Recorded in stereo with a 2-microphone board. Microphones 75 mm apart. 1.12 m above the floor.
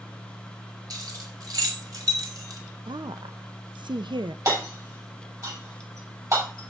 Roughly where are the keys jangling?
Right.